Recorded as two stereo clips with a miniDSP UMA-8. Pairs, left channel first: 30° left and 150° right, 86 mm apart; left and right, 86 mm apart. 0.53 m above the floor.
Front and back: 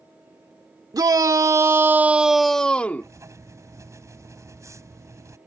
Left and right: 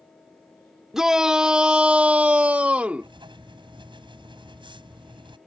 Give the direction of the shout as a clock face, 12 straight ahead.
6 o'clock.